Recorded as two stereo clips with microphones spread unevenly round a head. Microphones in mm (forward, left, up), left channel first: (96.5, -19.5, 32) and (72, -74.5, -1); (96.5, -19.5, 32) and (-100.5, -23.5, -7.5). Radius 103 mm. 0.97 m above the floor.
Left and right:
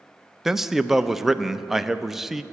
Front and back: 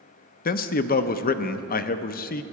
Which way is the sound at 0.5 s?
50° right.